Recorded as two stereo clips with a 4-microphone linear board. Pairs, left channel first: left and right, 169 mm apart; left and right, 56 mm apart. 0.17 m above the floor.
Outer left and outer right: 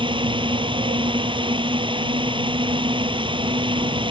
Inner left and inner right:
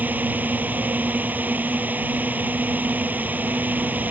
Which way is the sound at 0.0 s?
30° right (ahead or behind).